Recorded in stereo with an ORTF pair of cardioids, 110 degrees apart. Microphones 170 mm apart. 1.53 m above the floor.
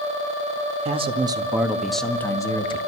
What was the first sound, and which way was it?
A man speaking, 35° right.